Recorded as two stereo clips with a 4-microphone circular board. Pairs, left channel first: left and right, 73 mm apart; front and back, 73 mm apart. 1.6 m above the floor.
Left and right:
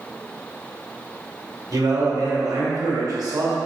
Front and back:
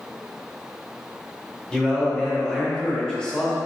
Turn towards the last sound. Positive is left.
turn(degrees=-80)